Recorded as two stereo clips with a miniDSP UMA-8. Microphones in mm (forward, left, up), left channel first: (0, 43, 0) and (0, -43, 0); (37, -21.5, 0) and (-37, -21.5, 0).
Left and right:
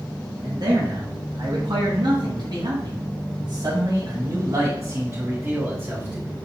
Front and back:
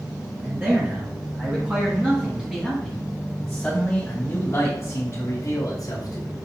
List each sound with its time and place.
0.4 s a man speaking: 125° right, 2.5 m; by 6.3 s 10° right, 1.8 m